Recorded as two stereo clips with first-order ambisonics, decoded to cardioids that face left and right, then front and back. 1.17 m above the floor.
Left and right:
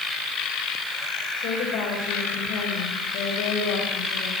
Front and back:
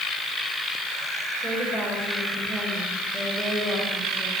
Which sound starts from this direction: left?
A woman speaking, at 1.4 s.